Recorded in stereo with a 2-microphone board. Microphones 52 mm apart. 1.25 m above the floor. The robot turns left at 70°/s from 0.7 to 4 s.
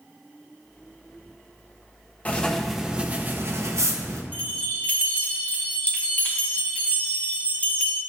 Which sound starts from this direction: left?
A bell, at 4.3 s.